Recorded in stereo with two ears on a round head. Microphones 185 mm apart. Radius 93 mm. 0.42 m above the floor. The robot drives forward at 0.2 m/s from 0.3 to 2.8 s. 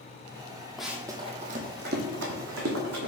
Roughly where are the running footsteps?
Centre.